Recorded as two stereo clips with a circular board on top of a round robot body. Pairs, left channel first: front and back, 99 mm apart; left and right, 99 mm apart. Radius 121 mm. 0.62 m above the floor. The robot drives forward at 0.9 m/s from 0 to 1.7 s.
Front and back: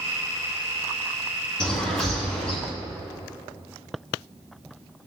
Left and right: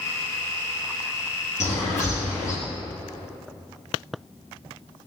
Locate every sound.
1.6 s a bird: 80° left, 3 m; by 2.6 s 85° left, 3 m